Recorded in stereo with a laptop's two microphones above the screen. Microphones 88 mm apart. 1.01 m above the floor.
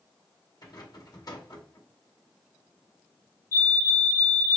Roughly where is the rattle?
Left.